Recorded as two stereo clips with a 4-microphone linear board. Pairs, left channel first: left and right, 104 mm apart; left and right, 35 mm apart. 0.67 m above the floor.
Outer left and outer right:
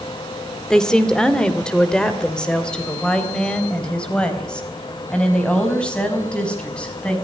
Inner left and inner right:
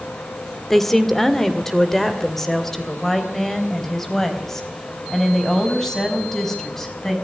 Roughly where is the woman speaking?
Centre.